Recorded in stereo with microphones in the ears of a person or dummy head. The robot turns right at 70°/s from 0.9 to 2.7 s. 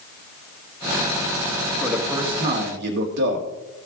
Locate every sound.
1.8 s a man speaking: 170° left, 2 m; by 3.5 s 130° right, 2 m